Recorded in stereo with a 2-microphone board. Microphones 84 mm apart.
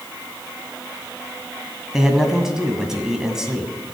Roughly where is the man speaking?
Centre.